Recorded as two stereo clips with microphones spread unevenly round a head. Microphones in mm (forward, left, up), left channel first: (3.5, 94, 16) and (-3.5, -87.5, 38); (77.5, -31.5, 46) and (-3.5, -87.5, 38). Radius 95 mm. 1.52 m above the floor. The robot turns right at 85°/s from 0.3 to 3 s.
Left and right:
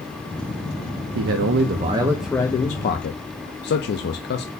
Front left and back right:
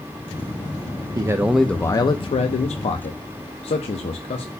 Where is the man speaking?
95° right, 0.5 m; by 4.5 s 65° left, 0.5 m.